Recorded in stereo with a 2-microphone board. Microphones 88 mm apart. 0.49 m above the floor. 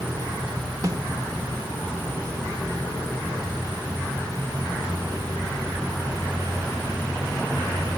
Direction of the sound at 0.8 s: 45° right (ahead or behind).